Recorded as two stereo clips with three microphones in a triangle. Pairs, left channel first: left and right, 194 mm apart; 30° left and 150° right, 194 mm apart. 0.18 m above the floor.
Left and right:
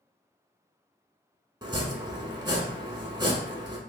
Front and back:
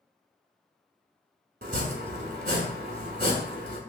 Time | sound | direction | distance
1.6 | chopping | 155° right | 0.8 m